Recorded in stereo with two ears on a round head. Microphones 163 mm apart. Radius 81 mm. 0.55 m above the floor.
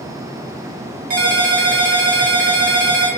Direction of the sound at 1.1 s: 50° right (ahead or behind).